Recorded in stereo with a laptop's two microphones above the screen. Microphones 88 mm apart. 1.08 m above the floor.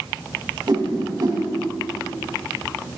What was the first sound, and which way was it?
A whoosh, 60° right (ahead or behind).